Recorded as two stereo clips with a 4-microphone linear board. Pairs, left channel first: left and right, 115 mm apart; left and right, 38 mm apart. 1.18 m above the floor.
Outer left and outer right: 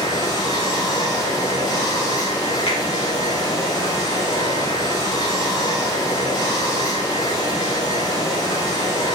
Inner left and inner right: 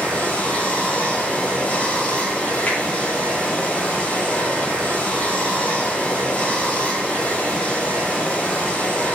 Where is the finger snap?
50° left (ahead or behind), 2.5 m.